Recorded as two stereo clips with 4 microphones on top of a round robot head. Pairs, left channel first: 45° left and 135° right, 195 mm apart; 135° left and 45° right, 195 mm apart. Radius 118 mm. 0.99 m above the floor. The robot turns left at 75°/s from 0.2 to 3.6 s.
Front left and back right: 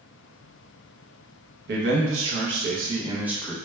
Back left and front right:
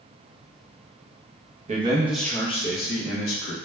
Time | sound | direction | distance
1.7 | a man speaking | 100° right | 0.7 m